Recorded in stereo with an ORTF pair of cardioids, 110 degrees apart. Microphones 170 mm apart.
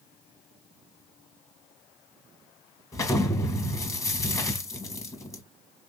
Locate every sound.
2.9 s an explosion: 20° left, 1.4 m